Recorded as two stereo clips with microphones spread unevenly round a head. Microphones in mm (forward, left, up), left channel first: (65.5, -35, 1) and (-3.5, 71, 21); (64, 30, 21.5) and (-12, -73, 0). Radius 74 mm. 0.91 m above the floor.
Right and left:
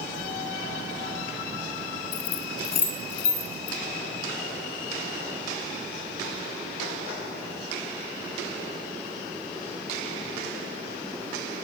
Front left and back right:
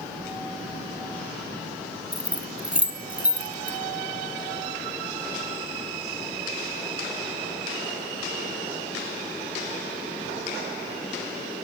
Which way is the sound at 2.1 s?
45° right.